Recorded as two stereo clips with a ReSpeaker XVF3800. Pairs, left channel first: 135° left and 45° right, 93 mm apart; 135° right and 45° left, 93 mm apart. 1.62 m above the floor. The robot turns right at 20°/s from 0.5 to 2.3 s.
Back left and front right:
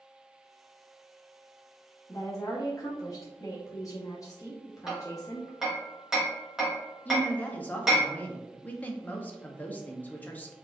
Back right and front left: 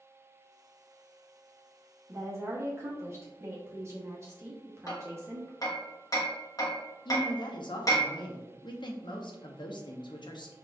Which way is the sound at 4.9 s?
125° right.